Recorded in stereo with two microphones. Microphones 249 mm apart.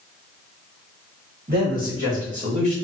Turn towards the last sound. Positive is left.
turn(degrees=-25)  # may be behind; listen again after turning